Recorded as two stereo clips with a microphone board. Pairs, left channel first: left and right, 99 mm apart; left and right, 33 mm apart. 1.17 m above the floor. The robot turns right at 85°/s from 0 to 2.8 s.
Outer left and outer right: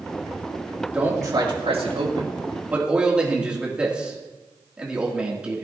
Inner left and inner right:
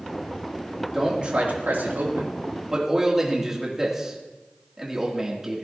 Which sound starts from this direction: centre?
A man speaking, at 0.9 s.